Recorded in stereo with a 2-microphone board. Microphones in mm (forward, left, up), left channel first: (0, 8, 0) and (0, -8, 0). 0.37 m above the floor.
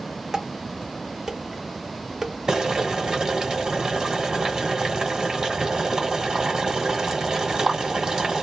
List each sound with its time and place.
0.3 s dishes clattering: 30° right (ahead or behind), 0.8 m
2.5 s boiling: 35° right (ahead or behind), 1.4 m